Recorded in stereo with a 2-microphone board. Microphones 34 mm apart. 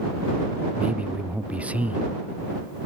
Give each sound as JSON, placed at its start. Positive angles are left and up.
{"t": 0.8, "sound": "a man speaking", "side_deg": -45}